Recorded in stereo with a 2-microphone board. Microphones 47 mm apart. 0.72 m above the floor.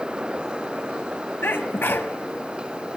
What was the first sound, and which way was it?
A sneeze, 50° left (ahead or behind).